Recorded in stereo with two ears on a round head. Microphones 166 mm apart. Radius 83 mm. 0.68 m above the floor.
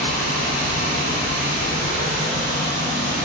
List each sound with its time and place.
0.0 s running water: 75° right (ahead or behind), 1.3 m